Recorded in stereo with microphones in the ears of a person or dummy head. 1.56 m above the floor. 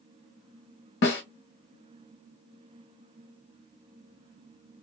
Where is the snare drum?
55° left (ahead or behind), 1.1 m.